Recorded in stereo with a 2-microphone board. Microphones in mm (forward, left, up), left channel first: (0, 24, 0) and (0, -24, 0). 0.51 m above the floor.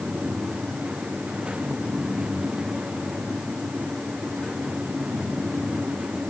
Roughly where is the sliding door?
I don't hear a sliding door.